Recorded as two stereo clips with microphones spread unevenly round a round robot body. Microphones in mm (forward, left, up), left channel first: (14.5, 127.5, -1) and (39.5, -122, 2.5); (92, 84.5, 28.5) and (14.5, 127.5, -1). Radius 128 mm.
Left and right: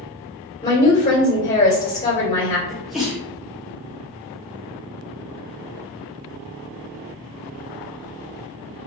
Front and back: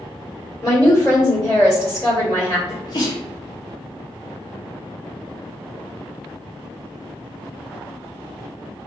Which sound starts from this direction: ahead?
A sneeze, at 2.7 s.